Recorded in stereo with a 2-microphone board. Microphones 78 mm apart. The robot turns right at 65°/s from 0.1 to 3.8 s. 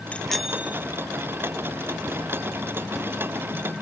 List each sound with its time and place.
0.1 s a bicycle bell: 160° left; by 0.9 s 150° right